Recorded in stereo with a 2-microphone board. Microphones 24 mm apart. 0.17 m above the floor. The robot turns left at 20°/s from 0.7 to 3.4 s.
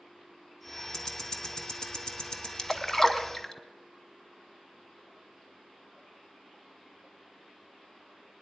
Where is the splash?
20° left (ahead or behind), 1.0 m; by 3.5 s 15° left (ahead or behind), 1.0 m.